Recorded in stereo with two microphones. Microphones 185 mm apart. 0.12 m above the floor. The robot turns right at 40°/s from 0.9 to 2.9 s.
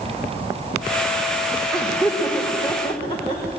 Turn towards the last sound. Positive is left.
turn(degrees=25)  # may be behind; listen again after turning